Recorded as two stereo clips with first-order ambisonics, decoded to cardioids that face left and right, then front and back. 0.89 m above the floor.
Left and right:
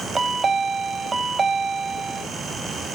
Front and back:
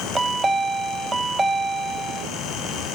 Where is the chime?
125° right, 0.6 m.